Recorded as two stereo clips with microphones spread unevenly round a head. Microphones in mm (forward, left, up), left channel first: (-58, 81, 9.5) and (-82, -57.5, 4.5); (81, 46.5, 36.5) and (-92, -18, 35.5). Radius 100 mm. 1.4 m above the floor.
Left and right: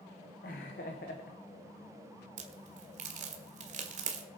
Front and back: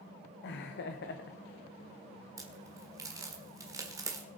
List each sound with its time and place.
0.4 s laughter: 40° left, 1.0 m
2.4 s a crack: 90° right, 1.5 m